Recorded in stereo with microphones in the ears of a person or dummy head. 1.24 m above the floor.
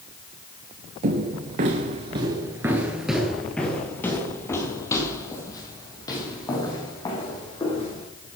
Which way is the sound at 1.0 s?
40° right (ahead or behind).